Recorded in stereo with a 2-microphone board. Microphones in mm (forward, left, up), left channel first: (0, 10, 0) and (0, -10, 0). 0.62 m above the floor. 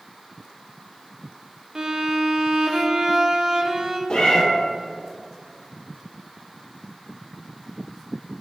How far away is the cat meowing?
About 1.9 m.